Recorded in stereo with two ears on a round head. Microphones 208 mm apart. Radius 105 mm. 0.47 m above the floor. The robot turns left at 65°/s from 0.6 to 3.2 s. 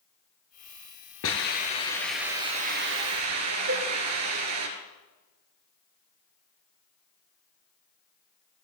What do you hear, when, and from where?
1.2 s a hiss: 60° left, 3 m; by 4.7 s 70° right, 3 m
3.7 s a cowbell: 55° right (ahead or behind), 4.5 m